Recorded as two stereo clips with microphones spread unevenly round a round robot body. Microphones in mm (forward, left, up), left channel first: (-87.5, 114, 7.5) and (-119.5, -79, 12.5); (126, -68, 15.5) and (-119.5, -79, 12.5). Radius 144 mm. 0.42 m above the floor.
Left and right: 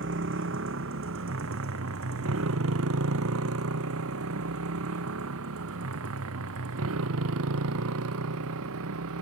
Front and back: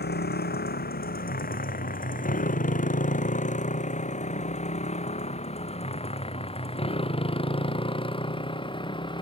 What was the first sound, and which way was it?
A motorcycle, 45° right.